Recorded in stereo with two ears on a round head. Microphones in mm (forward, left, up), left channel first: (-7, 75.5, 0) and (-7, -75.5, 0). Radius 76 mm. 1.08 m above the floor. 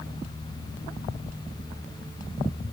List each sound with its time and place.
Only background noise.